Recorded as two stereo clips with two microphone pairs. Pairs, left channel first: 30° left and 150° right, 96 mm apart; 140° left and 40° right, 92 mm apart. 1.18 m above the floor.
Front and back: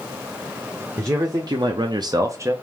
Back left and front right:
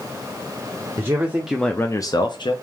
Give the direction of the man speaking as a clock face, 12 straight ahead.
3 o'clock.